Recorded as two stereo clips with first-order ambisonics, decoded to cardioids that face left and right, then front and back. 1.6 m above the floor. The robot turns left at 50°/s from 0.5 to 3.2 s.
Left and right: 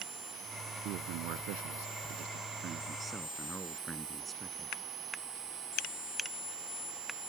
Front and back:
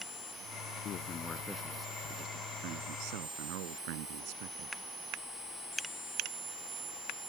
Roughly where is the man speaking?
Ahead right.